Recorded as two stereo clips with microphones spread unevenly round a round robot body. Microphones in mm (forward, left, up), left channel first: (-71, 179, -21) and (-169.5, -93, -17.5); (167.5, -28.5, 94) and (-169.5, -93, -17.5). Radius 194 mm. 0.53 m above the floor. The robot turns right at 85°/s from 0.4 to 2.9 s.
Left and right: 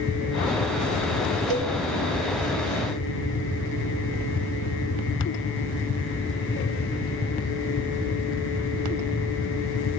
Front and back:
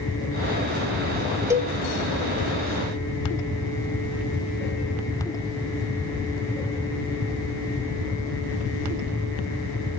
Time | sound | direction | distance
1.5 | a cowbell | 90° right | 1.6 m